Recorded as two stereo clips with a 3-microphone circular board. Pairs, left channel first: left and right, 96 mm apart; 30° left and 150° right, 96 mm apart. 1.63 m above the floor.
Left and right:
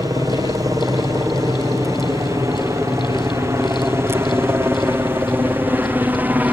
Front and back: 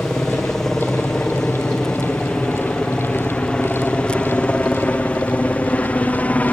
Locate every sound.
0.0 s a helicopter: 55° right; by 6.5 s 30° right